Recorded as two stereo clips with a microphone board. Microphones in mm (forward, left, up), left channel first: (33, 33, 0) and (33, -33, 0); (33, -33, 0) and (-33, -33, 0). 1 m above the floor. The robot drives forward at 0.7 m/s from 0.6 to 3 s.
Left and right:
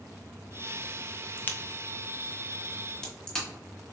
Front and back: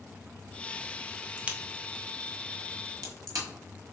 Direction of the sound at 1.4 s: 115° left.